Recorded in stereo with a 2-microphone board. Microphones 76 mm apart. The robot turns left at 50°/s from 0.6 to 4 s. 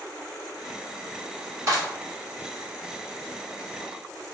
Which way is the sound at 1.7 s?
40° right (ahead or behind).